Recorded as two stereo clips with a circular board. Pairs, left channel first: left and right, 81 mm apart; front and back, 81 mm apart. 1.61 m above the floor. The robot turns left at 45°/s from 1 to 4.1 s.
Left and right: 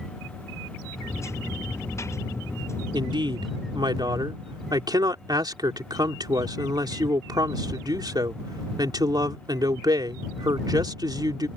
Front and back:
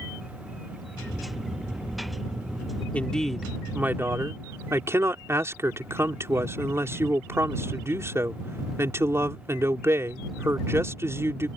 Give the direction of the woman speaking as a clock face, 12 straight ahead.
2 o'clock.